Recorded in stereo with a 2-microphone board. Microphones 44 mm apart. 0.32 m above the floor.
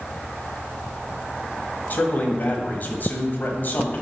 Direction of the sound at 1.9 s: 45° left (ahead or behind).